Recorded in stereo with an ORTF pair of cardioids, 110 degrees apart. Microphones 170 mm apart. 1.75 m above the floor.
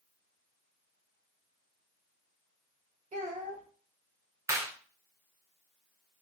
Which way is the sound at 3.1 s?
45° right.